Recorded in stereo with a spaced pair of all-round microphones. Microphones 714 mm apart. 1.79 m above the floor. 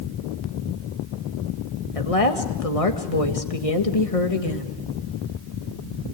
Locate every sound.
1.9 s a woman speaking: 50° left (ahead or behind), 1.9 m